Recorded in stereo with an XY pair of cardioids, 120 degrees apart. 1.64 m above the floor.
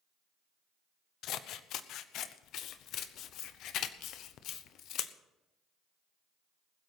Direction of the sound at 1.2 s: 70° left.